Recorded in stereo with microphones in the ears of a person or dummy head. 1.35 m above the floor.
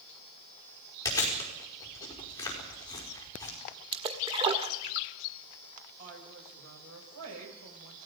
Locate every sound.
1.1 s chewing: 20° left (ahead or behind), 5 m
3.9 s a splash: 25° right (ahead or behind), 1.6 m
6.0 s a woman speaking: 80° right, 7 m